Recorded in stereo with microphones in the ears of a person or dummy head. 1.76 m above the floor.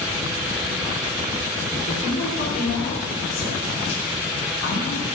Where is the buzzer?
I don't hear a buzzer.